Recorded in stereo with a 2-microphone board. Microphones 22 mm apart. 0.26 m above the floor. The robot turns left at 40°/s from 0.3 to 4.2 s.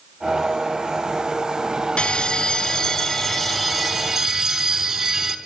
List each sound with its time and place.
2.0 s a bell: 60° left, 0.6 m; by 5.4 s 30° right, 0.6 m